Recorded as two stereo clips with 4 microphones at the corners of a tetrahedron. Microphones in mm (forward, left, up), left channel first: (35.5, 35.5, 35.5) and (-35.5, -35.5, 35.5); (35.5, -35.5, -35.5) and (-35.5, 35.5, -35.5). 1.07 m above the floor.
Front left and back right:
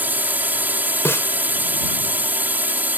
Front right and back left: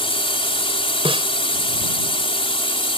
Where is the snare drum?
110° left.